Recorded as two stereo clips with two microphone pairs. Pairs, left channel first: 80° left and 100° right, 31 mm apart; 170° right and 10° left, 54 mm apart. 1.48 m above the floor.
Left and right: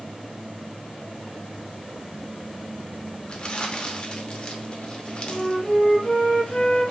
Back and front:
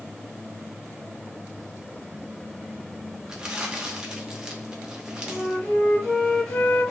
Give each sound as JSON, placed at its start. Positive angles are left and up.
{"t": 3.3, "sound": "crumpling", "azimuth_deg": 75, "distance_m": 0.7}
{"t": 5.3, "sound": "a flute", "azimuth_deg": 115, "distance_m": 1.4}